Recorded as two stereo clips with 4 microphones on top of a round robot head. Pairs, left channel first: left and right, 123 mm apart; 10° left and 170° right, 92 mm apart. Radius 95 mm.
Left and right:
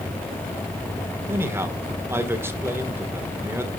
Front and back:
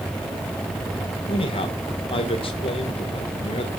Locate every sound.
1.3 s a man speaking: 20° right, 1.8 m